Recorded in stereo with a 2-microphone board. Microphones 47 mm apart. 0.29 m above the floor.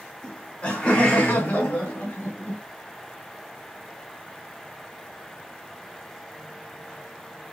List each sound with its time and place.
0.2 s laughter: 30° left (ahead or behind), 1.6 m; by 2.6 s 60° left (ahead or behind), 1.8 m